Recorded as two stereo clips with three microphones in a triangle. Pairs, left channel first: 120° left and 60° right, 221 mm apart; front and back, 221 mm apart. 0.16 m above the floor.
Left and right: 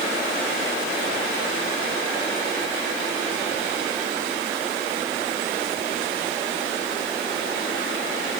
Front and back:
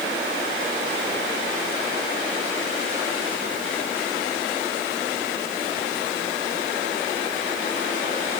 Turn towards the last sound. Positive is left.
No sound to turn to.